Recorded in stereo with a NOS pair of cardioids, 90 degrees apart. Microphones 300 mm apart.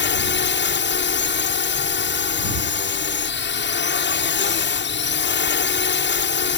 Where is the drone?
40° left.